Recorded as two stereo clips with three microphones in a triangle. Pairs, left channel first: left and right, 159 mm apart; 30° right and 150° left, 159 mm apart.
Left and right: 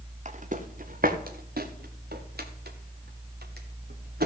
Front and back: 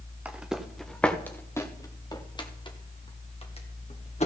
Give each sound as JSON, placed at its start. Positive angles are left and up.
{"t": 0.2, "sound": "footsteps", "azimuth_deg": -130, "distance_m": 1.4}